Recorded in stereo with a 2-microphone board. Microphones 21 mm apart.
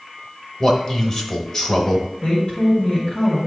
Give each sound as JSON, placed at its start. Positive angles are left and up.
{"t": 0.6, "sound": "a man speaking", "side_deg": 30, "distance_m": 1.2}
{"t": 2.2, "sound": "a woman speaking", "side_deg": 45, "distance_m": 2.0}